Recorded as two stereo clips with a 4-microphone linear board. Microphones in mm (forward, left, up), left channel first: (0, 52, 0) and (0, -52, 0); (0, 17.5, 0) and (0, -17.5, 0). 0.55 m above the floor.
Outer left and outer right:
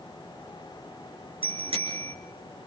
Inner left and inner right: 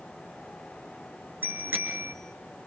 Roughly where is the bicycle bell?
Right.